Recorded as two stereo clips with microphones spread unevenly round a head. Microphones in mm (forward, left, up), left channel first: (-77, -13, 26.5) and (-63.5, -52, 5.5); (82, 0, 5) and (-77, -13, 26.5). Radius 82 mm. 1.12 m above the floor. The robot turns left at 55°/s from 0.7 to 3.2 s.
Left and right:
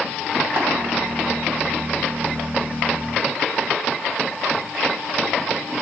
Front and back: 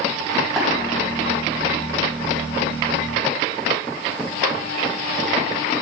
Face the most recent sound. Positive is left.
turn(degrees=140)